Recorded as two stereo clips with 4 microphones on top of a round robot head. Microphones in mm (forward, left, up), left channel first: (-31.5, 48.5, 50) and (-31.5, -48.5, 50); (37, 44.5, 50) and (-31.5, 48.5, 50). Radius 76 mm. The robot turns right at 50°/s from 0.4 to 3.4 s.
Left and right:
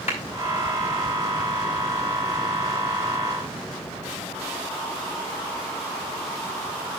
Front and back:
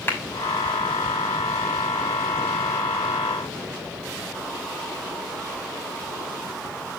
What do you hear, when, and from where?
0.1 s a clap: 55° left, 6 m